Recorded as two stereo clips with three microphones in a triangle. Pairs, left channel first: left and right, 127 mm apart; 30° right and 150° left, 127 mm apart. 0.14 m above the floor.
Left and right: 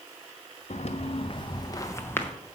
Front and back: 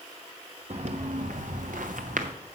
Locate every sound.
0.7 s footsteps: 120° left, 1.1 m; by 2.3 s 165° left, 1.4 m